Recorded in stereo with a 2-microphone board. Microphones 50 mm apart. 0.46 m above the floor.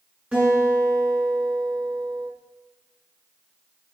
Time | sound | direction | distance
0.3 | a guitar | 25° right (ahead or behind) | 7 m